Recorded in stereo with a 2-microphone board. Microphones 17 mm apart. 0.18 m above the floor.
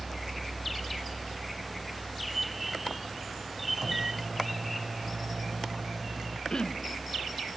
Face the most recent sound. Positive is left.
turn(degrees=60)  # may be behind; listen again after turning